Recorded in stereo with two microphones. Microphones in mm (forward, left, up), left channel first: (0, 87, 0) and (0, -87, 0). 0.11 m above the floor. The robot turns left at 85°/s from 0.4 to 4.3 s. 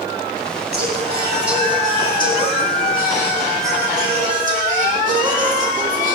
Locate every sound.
0.7 s singing: 110° right, 5.5 m; by 6.2 s 55° right, 5.5 m